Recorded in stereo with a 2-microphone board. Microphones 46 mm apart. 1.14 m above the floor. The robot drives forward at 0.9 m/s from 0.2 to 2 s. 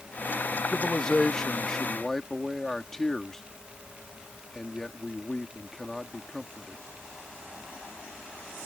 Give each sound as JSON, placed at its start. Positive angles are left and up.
{"t": 0.7, "sound": "a man speaking", "side_deg": 20}